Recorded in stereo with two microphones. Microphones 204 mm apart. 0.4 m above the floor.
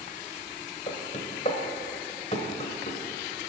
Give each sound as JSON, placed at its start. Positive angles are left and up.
{"t": 0.9, "sound": "knocking", "side_deg": 35, "distance_m": 1.2}